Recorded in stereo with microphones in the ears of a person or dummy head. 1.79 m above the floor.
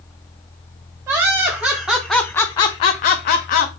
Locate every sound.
1.1 s laughter: 15° right (ahead or behind), 1.1 m; by 3.7 s 45° left (ahead or behind), 0.8 m